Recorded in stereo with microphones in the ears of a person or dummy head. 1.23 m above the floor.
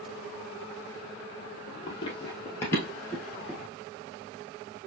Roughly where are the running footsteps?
Left.